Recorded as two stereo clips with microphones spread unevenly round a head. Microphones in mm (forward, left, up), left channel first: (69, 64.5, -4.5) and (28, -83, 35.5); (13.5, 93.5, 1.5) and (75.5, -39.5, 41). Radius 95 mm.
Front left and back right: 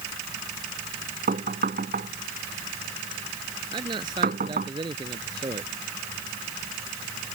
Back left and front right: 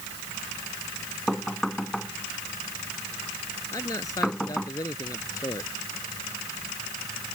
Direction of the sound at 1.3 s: 155° right.